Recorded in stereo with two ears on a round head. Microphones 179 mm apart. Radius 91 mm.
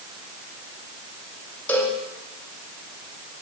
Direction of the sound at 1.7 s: 5° left (ahead or behind).